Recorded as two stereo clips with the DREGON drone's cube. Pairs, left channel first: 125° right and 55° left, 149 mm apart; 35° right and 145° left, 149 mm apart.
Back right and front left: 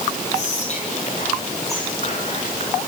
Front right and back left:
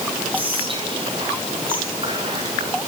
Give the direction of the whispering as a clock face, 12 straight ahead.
5 o'clock.